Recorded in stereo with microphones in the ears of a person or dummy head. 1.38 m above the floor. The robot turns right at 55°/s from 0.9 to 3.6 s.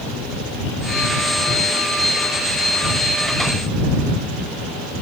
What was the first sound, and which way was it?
Only background noise.